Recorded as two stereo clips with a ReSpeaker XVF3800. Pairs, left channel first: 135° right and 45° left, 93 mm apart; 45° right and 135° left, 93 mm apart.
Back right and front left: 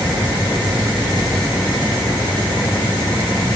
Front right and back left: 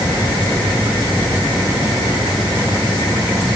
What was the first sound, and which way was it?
Only background noise.